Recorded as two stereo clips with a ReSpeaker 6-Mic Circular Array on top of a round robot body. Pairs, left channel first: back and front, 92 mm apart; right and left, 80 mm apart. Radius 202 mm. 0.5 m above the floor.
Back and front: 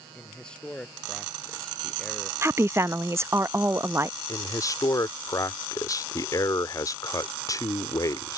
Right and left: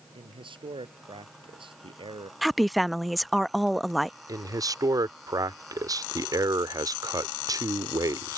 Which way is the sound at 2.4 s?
Straight ahead.